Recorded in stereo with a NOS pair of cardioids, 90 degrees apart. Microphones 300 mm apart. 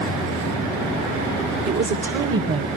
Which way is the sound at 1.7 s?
70° right.